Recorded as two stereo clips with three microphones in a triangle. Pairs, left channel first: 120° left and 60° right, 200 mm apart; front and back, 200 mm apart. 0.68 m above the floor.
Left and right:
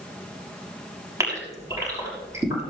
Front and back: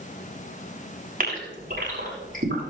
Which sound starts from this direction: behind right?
A gasp, at 1.2 s.